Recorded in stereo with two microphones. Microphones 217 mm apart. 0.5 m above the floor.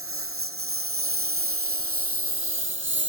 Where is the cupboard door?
No cupboard door in this recording.